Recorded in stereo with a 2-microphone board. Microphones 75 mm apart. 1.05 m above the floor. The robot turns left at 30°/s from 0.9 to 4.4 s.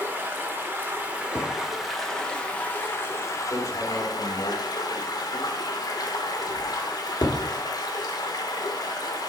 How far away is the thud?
About 1.4 m.